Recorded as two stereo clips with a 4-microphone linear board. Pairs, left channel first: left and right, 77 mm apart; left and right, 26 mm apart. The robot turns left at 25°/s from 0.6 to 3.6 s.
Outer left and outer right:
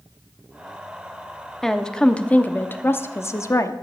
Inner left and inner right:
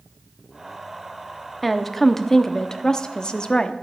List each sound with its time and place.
1.6 s a woman speaking: 175° left, 0.8 m; by 3.7 s 125° left, 0.8 m